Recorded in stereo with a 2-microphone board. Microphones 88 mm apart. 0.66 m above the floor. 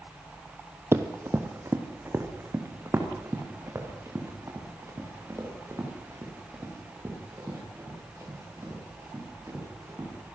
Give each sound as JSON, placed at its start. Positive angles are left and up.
{"t": 0.9, "sound": "running footsteps", "side_deg": -30, "distance_m": 1.5}